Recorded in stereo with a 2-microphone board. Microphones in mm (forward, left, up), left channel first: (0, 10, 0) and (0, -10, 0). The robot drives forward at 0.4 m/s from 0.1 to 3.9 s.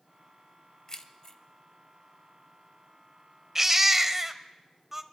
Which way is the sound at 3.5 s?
20° right (ahead or behind).